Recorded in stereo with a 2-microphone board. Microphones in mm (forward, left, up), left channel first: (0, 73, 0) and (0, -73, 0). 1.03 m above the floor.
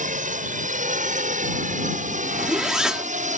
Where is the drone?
60° right (ahead or behind).